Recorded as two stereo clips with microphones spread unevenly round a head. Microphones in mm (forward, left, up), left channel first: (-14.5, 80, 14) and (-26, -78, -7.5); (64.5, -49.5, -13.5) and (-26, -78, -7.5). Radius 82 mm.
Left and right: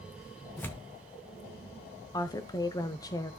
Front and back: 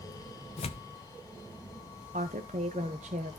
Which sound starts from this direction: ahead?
Tearing paper, at 0.6 s.